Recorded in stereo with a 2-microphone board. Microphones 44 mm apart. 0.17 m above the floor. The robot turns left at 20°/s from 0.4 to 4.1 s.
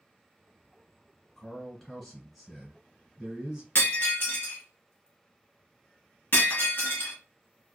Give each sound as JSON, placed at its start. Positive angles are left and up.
{"t": 1.4, "sound": "a man speaking", "azimuth_deg": 35, "distance_m": 1.6}
{"t": 3.8, "sound": "breaking glass", "side_deg": 60, "distance_m": 1.2}